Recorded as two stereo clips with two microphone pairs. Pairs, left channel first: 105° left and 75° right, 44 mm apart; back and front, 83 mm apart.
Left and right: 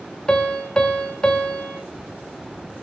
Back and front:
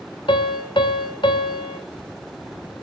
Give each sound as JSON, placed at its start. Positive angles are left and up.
{"t": 0.3, "sound": "a piano", "azimuth_deg": 175, "distance_m": 1.9}